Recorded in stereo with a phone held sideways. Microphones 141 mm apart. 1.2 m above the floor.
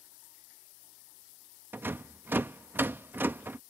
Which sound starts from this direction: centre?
A rattle, at 1.7 s.